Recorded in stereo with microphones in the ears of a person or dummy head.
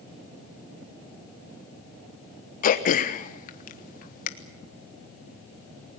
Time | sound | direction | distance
2.6 | throat clearing | 50° left (ahead or behind) | 1.2 m